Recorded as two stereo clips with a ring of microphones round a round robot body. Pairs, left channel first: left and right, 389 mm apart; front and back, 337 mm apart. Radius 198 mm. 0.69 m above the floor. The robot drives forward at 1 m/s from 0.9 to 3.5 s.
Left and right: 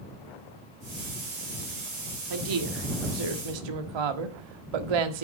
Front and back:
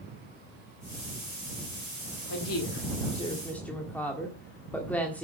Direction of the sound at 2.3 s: 50° right.